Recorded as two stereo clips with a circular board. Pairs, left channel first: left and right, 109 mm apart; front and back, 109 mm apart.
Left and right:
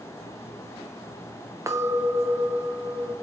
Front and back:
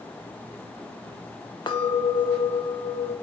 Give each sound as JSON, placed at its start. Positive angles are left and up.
{"t": 1.7, "sound": "a clink", "azimuth_deg": -35, "distance_m": 0.6}